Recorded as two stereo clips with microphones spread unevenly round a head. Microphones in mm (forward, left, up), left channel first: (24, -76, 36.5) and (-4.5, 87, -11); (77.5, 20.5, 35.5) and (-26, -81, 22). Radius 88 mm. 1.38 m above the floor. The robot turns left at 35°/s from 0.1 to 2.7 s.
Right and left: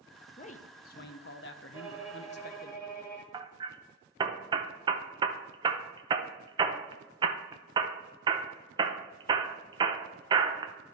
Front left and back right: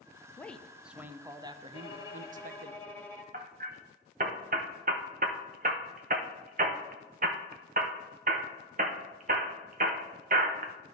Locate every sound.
0.4 s a man speaking: 35° right, 0.7 m; by 2.7 s 115° right, 0.7 m
1.7 s a violin: 15° left, 1.6 m; by 3.2 s 20° right, 1.6 m
3.3 s hammering: 175° left, 0.6 m